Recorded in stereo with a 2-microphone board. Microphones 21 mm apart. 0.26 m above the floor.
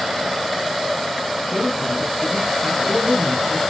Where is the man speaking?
35° right (ahead or behind), 4 m.